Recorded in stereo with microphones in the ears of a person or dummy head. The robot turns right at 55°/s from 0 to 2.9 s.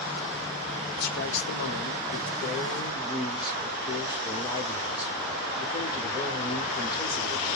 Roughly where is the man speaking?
Ahead left.